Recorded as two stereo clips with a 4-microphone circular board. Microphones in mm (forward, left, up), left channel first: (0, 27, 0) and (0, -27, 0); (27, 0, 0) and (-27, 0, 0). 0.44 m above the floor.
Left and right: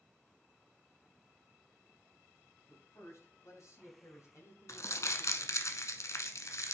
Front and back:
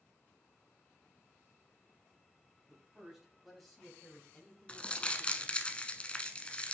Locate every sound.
2.7 s a man speaking: 105° left, 3 m; by 5.7 s 60° left, 3.5 m
4.7 s crumpling: 70° left, 1.0 m